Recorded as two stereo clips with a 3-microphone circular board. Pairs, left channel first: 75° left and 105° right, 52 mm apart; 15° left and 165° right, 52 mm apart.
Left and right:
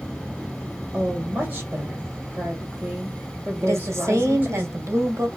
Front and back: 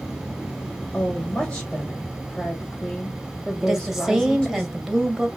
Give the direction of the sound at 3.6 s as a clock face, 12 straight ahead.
3 o'clock.